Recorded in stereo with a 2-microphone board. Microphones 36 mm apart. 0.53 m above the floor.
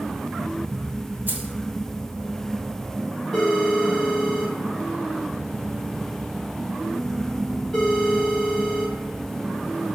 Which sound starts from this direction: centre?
A phone ringing, at 3.3 s.